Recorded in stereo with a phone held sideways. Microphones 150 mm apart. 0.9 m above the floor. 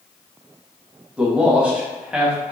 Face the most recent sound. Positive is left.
turn(degrees=-5)  # may be behind; listen again after turning